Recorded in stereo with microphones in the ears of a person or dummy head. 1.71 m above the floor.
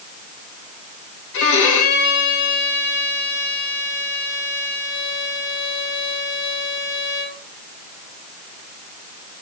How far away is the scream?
I don't hear a scream.